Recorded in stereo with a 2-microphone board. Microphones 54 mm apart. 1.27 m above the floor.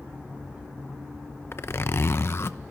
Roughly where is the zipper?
Left.